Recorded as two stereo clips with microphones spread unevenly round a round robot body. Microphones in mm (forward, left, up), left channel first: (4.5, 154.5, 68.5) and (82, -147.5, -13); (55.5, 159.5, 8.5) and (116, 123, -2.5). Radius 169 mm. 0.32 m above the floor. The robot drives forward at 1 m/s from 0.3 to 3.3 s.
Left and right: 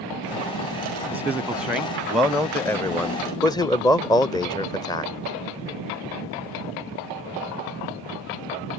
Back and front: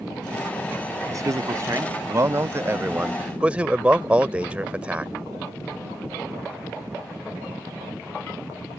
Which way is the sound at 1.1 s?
5° left.